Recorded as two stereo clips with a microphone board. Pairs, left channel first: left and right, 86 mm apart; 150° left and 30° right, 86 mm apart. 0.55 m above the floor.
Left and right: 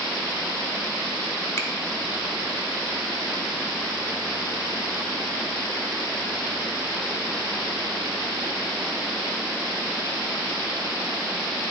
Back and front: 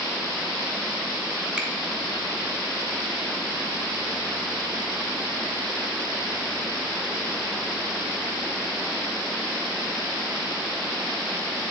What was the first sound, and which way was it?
A finger snap, 45° left.